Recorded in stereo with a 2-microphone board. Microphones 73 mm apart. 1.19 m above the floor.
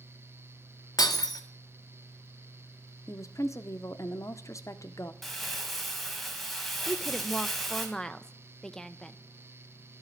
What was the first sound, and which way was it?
Breaking glass, 65° left (ahead or behind).